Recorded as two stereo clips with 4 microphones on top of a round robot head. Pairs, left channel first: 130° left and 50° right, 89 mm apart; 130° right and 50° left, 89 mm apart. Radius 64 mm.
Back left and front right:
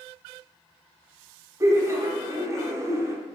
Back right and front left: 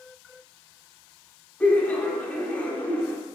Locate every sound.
1.6 s laughter: 65° right, 0.8 m